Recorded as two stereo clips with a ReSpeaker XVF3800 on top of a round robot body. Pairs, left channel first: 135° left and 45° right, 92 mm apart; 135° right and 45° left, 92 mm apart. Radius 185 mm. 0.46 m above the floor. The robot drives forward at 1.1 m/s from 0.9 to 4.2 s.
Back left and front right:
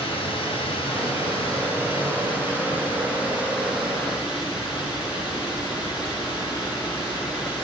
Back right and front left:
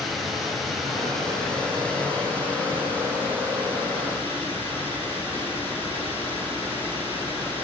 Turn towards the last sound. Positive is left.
turn(degrees=160)